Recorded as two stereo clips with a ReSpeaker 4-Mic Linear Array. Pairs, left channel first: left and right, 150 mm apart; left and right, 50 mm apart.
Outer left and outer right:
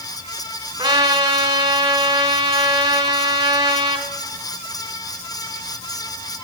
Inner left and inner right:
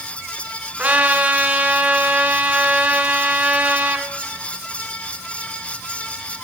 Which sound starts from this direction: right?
A trumpet, at 0.8 s.